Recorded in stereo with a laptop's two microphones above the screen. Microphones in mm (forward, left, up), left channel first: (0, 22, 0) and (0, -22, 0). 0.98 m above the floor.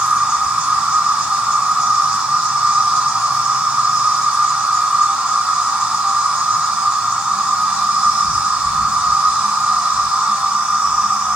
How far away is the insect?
About 1.3 m.